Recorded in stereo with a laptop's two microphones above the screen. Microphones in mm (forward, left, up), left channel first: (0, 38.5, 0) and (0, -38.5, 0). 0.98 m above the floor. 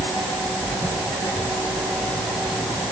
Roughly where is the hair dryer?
I don't hear a hair dryer.